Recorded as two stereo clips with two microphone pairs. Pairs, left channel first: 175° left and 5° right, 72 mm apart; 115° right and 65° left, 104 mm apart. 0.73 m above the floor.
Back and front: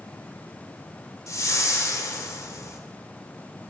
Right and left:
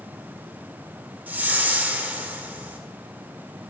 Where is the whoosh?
140° left, 1.4 m.